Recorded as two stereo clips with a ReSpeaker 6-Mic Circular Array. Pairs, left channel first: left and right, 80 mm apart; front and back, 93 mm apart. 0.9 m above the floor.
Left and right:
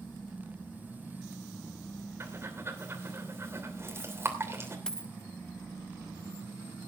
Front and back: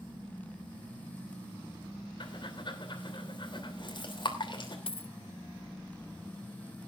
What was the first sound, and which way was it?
Breathing, 30° right.